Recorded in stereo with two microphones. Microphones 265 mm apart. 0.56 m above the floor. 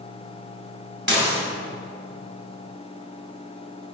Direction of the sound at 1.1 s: 50° right (ahead or behind).